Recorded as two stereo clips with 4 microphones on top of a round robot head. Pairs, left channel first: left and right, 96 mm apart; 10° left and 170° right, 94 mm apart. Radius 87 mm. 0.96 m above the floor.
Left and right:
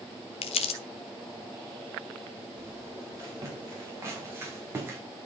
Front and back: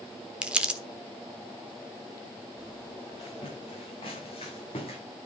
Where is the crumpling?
110° left, 1.3 m.